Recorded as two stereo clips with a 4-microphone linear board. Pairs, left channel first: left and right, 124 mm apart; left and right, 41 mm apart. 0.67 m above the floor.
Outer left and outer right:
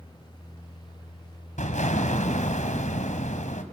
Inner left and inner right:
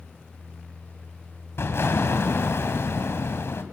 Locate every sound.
1.6 s an explosion: 80° left, 2.5 m